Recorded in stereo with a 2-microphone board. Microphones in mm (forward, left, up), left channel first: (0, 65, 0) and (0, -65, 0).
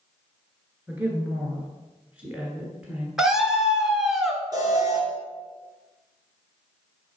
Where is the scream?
Centre (ahead or behind), 1.1 m.